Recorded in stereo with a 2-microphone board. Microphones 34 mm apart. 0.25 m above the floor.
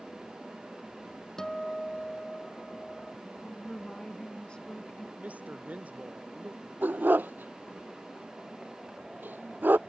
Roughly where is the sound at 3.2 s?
Left.